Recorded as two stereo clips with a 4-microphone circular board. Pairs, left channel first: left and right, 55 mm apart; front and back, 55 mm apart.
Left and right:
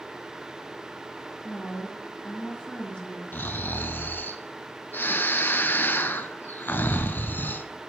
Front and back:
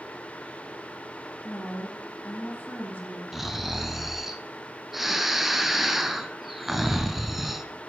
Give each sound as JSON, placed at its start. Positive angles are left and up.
{"t": 1.4, "sound": "a woman speaking", "azimuth_deg": 25, "distance_m": 2.0}
{"t": 3.3, "sound": "snoring", "azimuth_deg": 95, "distance_m": 0.6}